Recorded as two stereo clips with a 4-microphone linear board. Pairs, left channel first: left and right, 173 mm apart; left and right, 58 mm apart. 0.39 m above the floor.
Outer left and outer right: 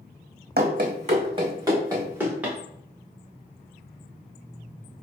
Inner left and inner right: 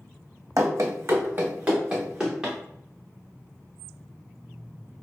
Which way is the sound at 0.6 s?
65° right (ahead or behind).